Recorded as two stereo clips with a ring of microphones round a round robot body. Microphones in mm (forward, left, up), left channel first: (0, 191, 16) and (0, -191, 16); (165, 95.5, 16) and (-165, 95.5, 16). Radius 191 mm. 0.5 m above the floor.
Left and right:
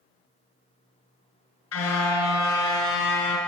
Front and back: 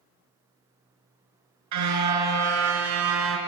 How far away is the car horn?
About 4 m.